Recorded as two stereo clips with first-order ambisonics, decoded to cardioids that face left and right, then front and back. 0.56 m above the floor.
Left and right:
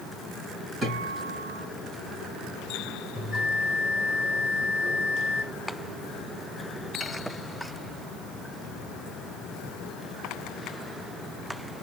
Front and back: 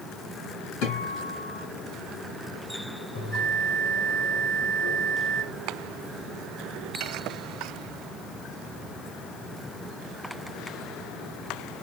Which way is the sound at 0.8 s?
15° right.